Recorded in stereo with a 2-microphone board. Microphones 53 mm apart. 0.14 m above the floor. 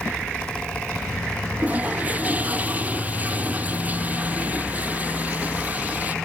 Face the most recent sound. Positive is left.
turn(degrees=-30)  # may be behind; listen again after turning